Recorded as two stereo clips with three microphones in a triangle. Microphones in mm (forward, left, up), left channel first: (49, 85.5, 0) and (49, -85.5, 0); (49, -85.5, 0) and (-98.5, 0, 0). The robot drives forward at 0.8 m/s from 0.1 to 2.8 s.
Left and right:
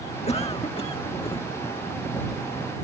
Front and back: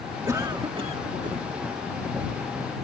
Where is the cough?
90° left; by 1.4 s 140° left.